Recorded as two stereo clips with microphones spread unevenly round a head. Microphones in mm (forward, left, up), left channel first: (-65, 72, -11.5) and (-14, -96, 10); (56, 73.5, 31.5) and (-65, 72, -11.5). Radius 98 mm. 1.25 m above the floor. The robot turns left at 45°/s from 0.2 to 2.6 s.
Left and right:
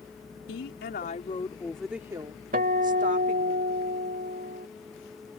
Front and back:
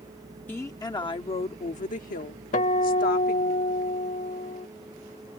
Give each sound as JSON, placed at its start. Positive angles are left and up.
{"t": 0.5, "sound": "a woman speaking", "azimuth_deg": 75}
{"t": 2.5, "sound": "a guitar", "azimuth_deg": -25}